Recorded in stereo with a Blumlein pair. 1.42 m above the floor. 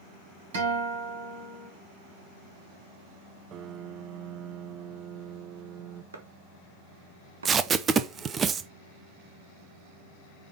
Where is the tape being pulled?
20° right, 0.7 m.